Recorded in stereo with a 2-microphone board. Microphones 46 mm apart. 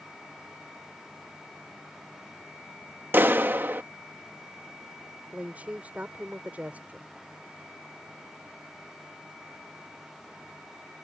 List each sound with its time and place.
3.1 s a clap: 50° right (ahead or behind)
5.3 s a woman speaking: 35° right (ahead or behind)